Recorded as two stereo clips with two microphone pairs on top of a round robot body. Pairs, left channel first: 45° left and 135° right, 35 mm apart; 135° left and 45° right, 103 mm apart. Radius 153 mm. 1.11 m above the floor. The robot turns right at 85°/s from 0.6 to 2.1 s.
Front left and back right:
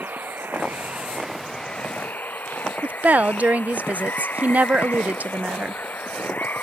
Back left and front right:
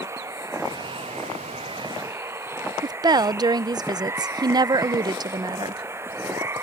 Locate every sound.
0.0 s running water: 110° right; by 6.6 s 15° left
2.8 s a woman speaking: 95° right